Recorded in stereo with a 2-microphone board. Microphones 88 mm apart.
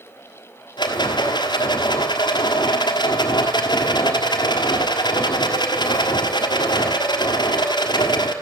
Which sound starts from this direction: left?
A rattle, at 0.8 s.